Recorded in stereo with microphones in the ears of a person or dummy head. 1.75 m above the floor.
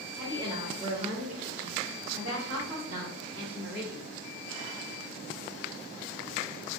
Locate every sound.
0.1 s a woman speaking: 15° right (ahead or behind), 1.1 m; by 4.0 s 80° right, 2 m